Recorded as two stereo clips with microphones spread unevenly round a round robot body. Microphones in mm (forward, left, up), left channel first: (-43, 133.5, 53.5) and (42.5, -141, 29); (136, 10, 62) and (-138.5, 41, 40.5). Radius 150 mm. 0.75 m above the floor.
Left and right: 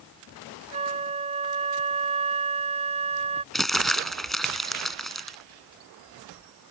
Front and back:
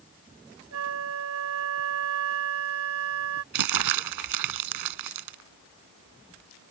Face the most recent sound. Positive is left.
turn(degrees=-165)